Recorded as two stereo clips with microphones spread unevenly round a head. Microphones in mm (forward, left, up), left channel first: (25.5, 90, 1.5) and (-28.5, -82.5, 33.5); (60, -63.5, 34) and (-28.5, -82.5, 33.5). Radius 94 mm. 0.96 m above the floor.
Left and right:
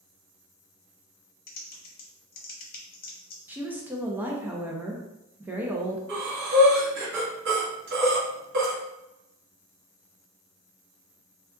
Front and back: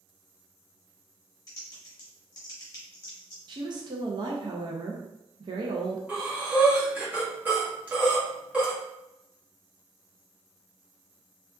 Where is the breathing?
95° right, 1.5 m.